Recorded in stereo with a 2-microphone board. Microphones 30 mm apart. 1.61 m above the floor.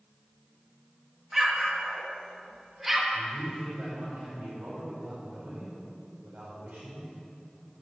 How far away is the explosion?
About 1.7 m.